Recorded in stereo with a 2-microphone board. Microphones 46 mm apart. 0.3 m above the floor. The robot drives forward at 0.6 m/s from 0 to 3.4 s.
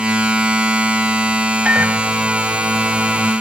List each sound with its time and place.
1.6 s a microwave: 35° right (ahead or behind); by 3.3 s 40° right (ahead or behind)